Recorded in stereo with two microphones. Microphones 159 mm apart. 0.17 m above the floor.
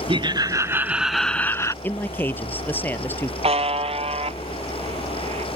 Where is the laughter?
35° right (ahead or behind); by 1.7 s 20° left (ahead or behind).